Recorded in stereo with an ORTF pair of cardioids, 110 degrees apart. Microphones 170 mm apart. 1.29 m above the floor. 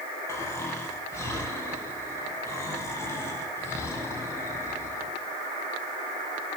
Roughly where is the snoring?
Ahead.